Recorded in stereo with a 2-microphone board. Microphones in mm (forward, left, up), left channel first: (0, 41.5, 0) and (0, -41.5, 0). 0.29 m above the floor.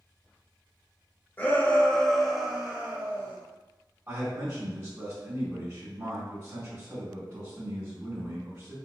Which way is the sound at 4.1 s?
25° right (ahead or behind).